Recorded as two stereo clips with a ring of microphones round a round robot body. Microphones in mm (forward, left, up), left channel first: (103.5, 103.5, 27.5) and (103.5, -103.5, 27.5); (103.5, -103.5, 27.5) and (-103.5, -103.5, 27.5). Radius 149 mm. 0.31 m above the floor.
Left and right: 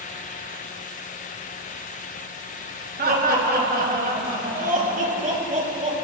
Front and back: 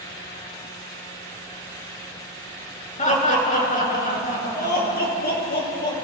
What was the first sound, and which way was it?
Laughter, 50° right.